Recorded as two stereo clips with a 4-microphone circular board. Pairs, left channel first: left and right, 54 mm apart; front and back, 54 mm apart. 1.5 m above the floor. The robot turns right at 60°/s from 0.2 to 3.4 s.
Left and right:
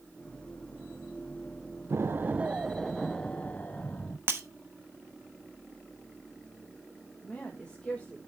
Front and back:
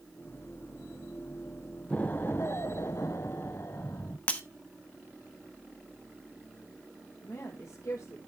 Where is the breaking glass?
60° right, 1.2 m.